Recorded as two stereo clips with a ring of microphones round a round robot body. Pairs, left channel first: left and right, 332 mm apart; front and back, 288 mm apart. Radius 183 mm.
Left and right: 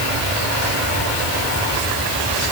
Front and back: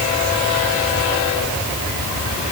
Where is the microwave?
I don't hear a microwave.